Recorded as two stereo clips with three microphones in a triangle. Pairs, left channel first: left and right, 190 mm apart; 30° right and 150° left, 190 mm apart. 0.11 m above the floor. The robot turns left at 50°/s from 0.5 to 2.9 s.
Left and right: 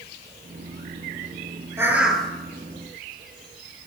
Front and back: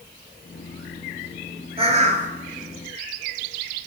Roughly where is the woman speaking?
I don't hear a woman speaking.